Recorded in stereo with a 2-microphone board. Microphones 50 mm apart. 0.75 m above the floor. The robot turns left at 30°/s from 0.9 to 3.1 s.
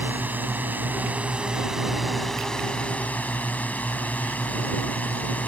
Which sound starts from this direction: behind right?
A drone, at 0.0 s.